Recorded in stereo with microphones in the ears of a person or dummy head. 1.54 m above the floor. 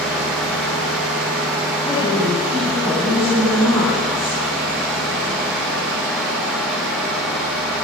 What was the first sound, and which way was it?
A woman speaking, 5° left (ahead or behind).